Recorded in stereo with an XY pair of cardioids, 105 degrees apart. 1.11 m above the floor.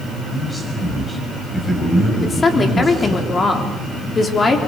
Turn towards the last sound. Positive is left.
turn(degrees=35)